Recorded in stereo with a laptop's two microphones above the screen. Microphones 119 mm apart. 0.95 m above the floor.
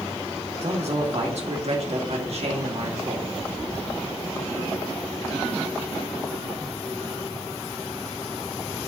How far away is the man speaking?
About 2 m.